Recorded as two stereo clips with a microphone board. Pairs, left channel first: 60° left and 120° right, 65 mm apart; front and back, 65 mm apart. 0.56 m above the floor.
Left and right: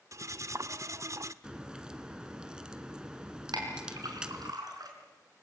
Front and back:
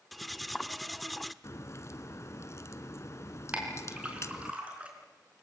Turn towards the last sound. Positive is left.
turn(degrees=-110)